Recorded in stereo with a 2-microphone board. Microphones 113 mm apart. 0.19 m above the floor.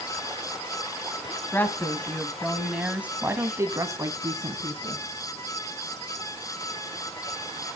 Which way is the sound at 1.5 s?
20° left (ahead or behind).